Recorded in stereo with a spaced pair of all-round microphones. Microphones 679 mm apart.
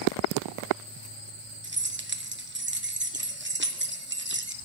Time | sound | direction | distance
1.6 | keys jangling | 20° right (ahead or behind) | 0.5 m